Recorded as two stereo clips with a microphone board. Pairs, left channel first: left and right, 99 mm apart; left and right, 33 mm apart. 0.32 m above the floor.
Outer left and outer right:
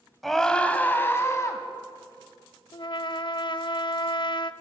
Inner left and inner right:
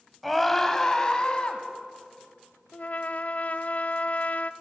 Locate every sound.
0.2 s a scream: centre (ahead or behind), 2 m; by 1.6 s 30° left (ahead or behind), 3 m
2.7 s a trumpet: 50° left (ahead or behind), 0.6 m